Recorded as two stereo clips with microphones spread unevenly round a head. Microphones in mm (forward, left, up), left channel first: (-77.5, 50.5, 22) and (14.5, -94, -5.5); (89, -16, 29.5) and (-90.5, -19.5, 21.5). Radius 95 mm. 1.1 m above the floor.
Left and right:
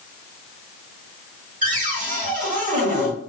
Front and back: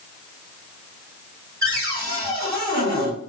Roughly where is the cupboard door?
Right.